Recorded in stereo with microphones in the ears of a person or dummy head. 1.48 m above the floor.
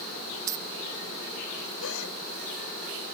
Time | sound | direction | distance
0.5 | keys jangling | 15° right (ahead or behind) | ?
1.8 | a gasp | 70° left (ahead or behind) | ?